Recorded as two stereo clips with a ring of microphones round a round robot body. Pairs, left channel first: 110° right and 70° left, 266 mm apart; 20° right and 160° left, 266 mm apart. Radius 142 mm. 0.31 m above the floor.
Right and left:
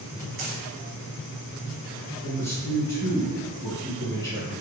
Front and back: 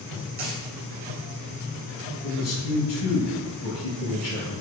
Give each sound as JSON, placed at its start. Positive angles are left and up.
{"t": 0.4, "sound": "a dropped coin", "azimuth_deg": 115, "distance_m": 1.4}
{"t": 2.2, "sound": "a man speaking", "azimuth_deg": -35, "distance_m": 1.8}